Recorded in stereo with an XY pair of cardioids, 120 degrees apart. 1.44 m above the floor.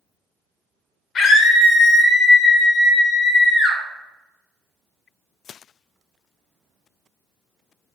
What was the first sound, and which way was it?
A scream, 55° left.